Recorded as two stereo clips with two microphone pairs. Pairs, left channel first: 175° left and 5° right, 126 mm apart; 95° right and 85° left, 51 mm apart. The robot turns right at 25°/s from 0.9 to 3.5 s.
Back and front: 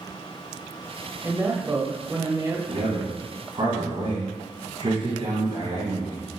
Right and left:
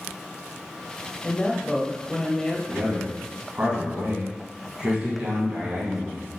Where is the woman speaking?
55° right, 0.9 m; by 2.6 s 25° right, 0.9 m.